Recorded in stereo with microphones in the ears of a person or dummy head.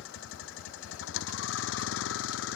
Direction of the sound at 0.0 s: 75° left (ahead or behind).